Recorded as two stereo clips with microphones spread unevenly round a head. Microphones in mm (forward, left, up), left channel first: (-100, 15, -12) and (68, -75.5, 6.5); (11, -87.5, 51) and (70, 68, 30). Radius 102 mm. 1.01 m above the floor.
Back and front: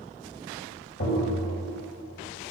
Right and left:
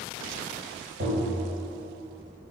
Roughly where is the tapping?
Behind left.